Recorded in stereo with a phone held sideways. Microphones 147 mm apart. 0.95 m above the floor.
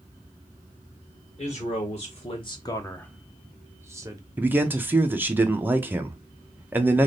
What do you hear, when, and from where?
1.4 s a man speaking: 50° left (ahead or behind), 1.1 m; by 4.2 s 25° right (ahead or behind), 1.0 m
4.4 s a man speaking: 15° right (ahead or behind), 0.5 m